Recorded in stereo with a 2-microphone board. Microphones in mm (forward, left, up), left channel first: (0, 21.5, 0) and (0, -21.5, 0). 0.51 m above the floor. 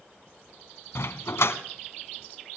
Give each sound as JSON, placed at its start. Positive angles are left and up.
{"t": 0.9, "sound": "a dog barking", "side_deg": 80, "distance_m": 1.3}